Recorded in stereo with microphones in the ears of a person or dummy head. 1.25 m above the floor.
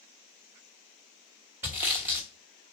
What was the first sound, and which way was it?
Sawing, 15° right (ahead or behind).